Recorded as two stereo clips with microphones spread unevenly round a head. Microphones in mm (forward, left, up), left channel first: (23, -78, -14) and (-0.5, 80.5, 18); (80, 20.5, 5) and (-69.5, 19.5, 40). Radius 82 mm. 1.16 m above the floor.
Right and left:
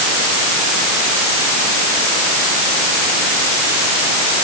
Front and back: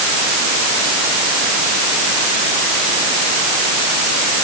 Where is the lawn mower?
I don't hear a lawn mower.